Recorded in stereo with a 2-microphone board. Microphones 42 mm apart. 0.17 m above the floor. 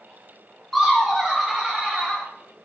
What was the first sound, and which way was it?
Laughter, centre (ahead or behind).